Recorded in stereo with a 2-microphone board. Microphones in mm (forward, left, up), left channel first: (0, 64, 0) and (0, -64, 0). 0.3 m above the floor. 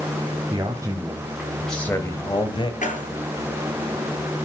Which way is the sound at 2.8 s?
80° left.